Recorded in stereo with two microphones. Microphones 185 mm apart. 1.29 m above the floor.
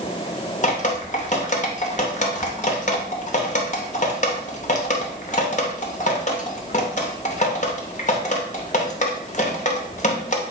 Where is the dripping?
45° left (ahead or behind), 0.7 m.